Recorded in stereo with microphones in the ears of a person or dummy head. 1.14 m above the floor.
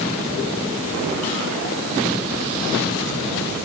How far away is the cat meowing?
I don't hear a cat meowing.